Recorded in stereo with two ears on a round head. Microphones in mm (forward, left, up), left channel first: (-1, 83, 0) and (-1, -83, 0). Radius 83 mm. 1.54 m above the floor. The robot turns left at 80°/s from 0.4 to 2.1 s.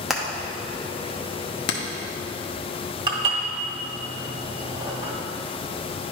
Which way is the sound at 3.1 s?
25° right (ahead or behind).